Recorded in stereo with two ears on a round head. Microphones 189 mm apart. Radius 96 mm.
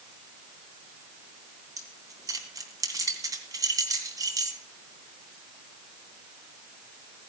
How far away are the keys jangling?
About 2.5 m.